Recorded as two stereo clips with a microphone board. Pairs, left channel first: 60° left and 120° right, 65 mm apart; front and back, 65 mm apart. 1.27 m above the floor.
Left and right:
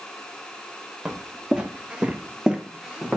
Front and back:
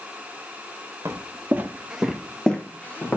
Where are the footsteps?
170° left, 1.6 m; by 3.2 s 45° right, 1.7 m.